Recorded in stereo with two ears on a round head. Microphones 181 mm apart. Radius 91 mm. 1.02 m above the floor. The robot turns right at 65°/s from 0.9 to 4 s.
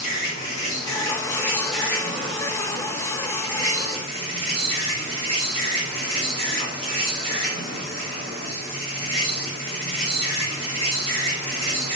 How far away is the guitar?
I don't hear a guitar.